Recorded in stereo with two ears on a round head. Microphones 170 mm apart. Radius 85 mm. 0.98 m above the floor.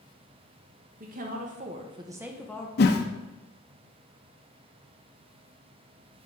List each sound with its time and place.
1.0 s a woman speaking: 50° right (ahead or behind), 1.2 m; by 2.7 s 15° left (ahead or behind), 0.6 m
2.8 s a whoosh: 55° left (ahead or behind), 0.6 m